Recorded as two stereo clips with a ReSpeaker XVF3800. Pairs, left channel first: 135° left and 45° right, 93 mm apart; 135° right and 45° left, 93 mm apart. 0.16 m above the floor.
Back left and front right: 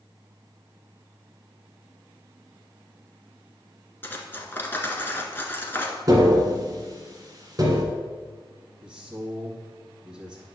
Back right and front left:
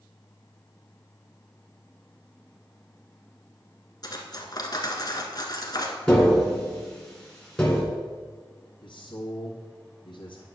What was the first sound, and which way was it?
Cutlery clinking, 165° right.